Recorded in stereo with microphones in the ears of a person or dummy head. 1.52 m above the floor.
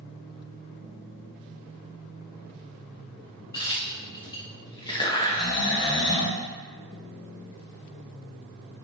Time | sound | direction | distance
3.5 | a crack | 20° left (ahead or behind) | 0.6 m
5.2 | snoring | 20° left (ahead or behind) | 0.5 m